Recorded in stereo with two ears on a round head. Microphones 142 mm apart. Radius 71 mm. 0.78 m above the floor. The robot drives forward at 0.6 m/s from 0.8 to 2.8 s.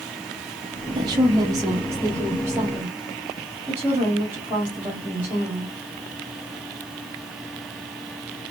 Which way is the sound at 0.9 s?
30° right (ahead or behind).